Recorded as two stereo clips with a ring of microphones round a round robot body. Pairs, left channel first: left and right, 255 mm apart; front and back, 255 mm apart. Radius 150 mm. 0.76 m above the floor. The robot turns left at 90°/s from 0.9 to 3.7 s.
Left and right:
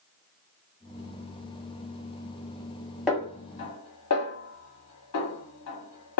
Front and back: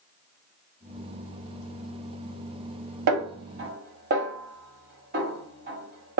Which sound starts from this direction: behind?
A snare drum, at 3.1 s.